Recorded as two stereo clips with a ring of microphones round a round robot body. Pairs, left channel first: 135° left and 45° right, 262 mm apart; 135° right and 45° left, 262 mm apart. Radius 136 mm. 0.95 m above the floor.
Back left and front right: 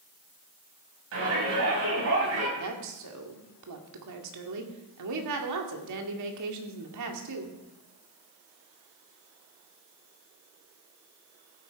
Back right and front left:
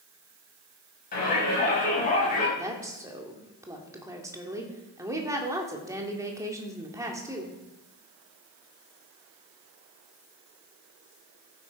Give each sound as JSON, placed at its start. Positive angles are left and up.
{"t": 1.1, "sound": "a shout", "azimuth_deg": -80, "distance_m": 6.0}
{"t": 2.6, "sound": "a woman speaking", "azimuth_deg": -35, "distance_m": 2.0}